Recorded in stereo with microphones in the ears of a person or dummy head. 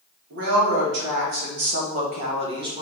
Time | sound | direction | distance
0.3 | a woman speaking | 70° right (ahead or behind) | 2 m